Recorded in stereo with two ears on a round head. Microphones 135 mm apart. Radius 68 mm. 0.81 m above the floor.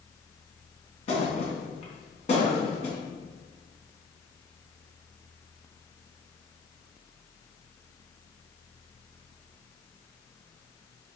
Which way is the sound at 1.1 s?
45° left (ahead or behind).